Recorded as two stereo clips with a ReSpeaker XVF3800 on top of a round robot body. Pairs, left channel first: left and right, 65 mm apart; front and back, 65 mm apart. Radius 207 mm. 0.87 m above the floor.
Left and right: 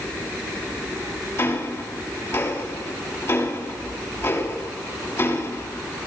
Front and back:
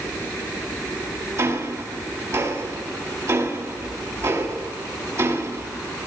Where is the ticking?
140° left, 3.5 m.